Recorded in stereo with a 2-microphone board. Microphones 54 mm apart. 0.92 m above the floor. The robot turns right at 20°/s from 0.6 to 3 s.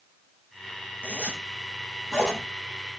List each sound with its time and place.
1.0 s a zipper: 30° left (ahead or behind), 6 m; by 2.5 s 5° left (ahead or behind), 6 m